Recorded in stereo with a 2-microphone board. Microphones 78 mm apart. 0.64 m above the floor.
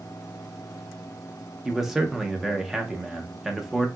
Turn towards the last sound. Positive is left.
turn(degrees=-5)  # may be behind; listen again after turning